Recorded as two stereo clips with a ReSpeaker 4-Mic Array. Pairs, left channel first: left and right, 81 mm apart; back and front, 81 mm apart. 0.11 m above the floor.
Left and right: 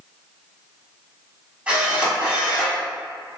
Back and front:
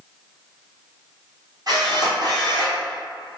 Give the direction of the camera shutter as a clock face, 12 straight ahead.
1 o'clock.